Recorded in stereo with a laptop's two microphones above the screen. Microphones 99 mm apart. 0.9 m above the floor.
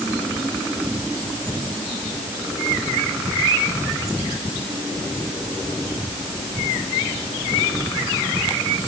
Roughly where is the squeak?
I don't hear a squeak.